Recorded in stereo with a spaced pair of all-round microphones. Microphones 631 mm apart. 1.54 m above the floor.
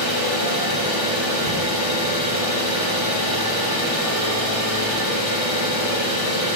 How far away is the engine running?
About 1.3 m.